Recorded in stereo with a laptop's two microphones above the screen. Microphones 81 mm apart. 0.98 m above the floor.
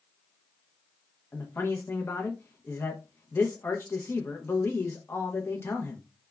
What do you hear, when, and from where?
1.3 s a man speaking: 30° left (ahead or behind), 0.5 m